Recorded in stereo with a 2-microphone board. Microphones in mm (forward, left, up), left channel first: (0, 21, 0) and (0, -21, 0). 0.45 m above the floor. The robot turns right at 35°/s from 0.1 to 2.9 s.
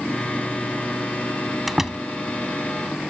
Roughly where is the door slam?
Centre.